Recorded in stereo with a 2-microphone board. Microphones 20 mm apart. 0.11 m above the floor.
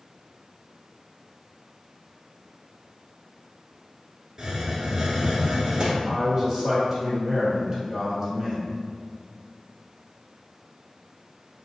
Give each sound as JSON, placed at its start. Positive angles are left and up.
{"t": 4.4, "sound": "a hiss", "side_deg": -30, "distance_m": 1.1}
{"t": 6.0, "sound": "a man speaking", "side_deg": -15, "distance_m": 2.0}